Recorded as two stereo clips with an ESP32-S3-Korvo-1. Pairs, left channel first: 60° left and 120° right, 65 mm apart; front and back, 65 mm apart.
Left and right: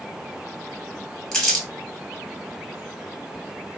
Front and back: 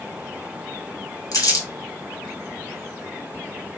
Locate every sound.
1.3 s crumpling: 20° right, 1.4 m